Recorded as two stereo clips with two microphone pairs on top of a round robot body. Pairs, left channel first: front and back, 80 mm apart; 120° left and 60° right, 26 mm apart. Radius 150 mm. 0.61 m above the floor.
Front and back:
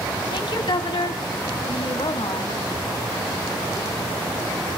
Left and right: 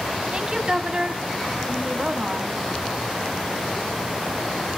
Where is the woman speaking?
10° right, 1.6 m.